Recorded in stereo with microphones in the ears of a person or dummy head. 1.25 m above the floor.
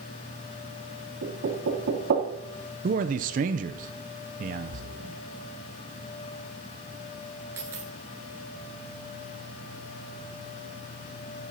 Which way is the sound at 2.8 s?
50° right (ahead or behind).